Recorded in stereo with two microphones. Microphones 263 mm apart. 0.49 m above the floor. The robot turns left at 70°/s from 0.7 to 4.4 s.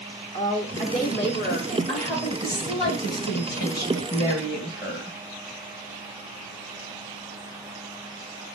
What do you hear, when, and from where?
0.3 s a woman speaking: 135° left, 0.9 m; by 1.8 s 60° left, 0.9 m
1.9 s a woman speaking: 140° right, 2 m; by 5.2 s 45° left, 2 m